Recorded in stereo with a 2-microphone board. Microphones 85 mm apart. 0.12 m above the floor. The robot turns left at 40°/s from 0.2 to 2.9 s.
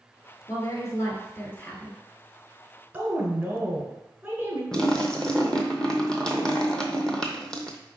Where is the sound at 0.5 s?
85° left, 1.2 m; by 2.0 s 25° left, 1.2 m.